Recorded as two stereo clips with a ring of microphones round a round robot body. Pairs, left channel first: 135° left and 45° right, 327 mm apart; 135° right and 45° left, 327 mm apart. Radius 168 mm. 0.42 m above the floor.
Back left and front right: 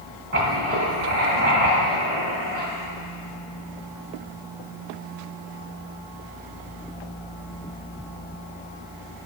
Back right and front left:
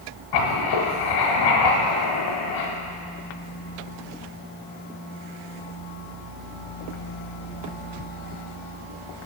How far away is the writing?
About 1.3 m.